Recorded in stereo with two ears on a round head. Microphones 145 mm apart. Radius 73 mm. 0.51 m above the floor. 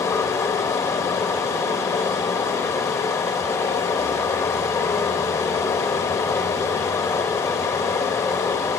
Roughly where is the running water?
Centre.